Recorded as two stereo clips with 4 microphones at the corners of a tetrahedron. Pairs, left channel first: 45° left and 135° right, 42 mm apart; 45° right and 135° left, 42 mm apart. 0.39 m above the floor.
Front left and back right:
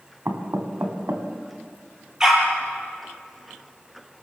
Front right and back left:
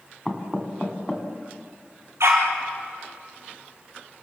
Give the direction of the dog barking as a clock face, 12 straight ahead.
7 o'clock.